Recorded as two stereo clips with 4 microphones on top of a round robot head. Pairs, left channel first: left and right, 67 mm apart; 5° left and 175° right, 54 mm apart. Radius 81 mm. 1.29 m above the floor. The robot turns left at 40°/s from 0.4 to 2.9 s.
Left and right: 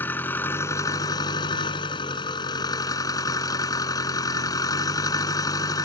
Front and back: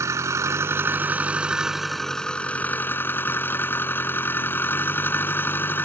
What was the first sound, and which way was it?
An engine running, 160° left.